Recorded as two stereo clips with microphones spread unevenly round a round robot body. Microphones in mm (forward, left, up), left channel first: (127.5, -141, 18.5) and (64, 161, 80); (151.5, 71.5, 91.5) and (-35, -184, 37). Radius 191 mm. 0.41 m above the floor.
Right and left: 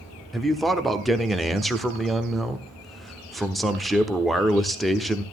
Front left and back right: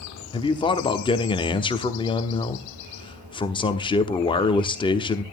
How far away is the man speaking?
About 1.1 m.